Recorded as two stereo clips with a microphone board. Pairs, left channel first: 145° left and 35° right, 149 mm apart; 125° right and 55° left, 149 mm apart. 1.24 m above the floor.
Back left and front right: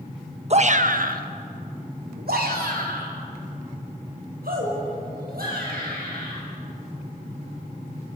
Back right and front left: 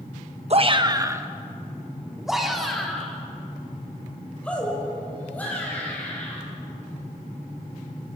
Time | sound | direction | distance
0.5 | a shout | 10° left | 1.1 m